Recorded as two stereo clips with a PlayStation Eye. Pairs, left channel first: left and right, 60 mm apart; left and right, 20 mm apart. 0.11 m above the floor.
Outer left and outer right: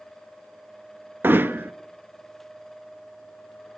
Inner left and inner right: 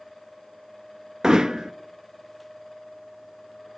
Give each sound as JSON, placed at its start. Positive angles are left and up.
{"t": 1.2, "sound": "hammering", "side_deg": -35, "distance_m": 0.5}